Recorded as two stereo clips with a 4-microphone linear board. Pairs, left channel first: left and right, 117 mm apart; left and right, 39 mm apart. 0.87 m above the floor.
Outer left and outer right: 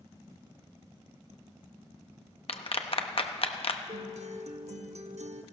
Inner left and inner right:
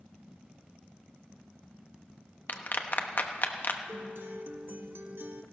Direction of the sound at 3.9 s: 70° right (ahead or behind).